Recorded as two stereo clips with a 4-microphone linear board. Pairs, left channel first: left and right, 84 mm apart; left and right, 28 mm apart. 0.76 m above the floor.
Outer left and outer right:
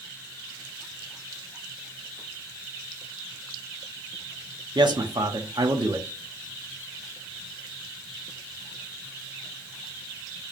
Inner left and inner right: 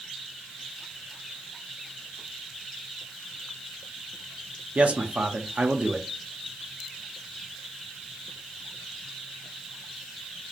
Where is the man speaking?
60° right (ahead or behind), 1.0 m.